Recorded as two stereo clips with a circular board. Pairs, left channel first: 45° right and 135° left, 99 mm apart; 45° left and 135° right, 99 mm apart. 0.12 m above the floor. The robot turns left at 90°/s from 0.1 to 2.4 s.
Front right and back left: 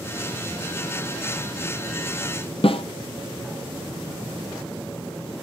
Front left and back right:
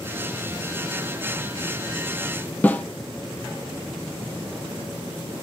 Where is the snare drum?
25° right, 1.0 m.